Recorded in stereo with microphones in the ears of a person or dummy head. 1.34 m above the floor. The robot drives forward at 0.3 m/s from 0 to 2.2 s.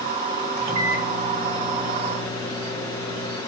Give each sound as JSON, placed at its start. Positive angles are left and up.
{"t": 0.6, "sound": "a microwave", "side_deg": -15, "distance_m": 5.5}